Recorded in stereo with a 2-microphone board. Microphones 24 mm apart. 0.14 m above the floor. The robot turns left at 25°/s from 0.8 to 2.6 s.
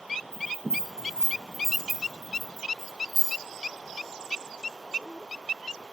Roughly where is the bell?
Right.